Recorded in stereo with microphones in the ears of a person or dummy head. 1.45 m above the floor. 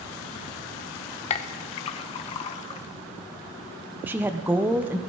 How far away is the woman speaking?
About 0.8 m.